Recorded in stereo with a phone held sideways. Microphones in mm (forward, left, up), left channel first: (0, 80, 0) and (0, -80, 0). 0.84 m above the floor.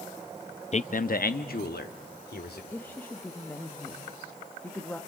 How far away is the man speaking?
About 0.5 m.